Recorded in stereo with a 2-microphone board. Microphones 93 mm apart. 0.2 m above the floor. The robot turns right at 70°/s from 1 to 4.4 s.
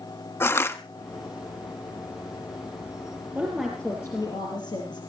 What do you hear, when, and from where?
0.4 s crushing: 25° left (ahead or behind), 1.2 m
3.4 s a woman speaking: 20° right, 5 m; by 5.0 s 50° left, 5 m